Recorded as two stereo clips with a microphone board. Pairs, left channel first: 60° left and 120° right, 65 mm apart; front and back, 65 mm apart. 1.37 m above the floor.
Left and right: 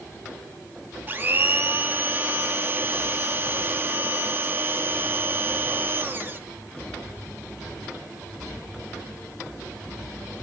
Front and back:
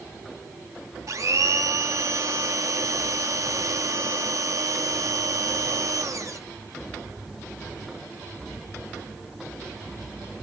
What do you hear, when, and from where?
1.1 s a blender: 170° right, 0.5 m